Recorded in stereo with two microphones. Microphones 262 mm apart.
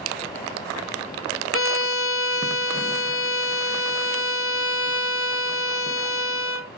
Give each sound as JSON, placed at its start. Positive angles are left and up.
{"t": 1.5, "sound": "a violin", "side_deg": 50, "distance_m": 0.6}